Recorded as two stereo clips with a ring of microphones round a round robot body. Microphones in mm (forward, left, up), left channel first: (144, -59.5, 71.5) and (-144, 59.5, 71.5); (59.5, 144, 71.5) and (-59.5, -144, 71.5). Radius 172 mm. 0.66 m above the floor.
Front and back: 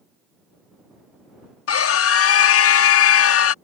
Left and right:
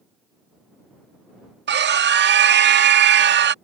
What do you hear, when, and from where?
1.7 s a scream: 60° right